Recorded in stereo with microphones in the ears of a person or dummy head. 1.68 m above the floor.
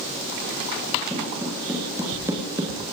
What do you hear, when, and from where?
1.1 s footsteps: 10° right (ahead or behind), 7.5 m; by 2.8 s 20° right (ahead or behind), 6.5 m